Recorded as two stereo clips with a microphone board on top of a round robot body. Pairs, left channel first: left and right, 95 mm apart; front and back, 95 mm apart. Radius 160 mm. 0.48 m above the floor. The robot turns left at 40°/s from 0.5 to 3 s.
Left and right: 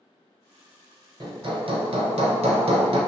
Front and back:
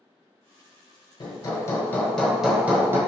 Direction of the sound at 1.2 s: 45° right.